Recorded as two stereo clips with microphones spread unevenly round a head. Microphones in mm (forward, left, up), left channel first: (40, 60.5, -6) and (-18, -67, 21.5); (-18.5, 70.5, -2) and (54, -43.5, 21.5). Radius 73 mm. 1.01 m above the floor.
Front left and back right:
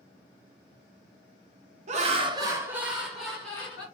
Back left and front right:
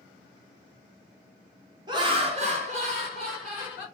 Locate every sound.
1.9 s laughter: 115° right, 0.8 m; by 3.9 s 10° right, 1.7 m